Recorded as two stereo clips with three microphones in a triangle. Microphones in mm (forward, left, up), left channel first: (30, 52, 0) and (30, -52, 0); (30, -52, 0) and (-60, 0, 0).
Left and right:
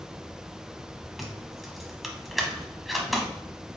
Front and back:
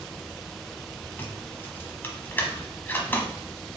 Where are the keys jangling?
Straight ahead, 0.8 m.